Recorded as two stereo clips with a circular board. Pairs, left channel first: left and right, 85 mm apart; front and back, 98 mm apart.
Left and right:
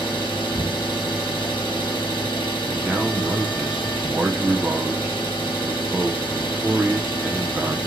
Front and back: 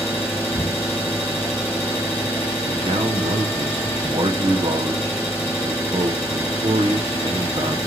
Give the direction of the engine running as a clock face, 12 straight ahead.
10 o'clock.